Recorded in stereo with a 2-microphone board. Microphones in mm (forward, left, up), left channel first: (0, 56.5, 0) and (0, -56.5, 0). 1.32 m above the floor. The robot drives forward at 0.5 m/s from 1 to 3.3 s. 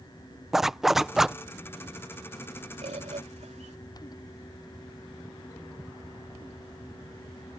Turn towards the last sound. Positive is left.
turn(degrees=-85)